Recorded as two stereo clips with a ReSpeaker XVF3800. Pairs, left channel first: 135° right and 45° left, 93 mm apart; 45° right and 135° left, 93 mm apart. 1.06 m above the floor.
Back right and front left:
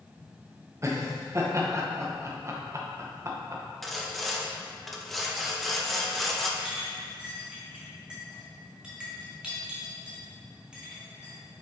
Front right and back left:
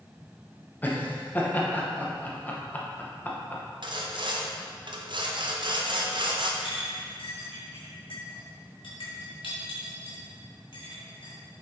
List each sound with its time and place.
0.8 s laughter: 15° left, 0.9 m
3.8 s sawing: 135° left, 0.7 m
6.6 s a clink: 35° right, 1.7 m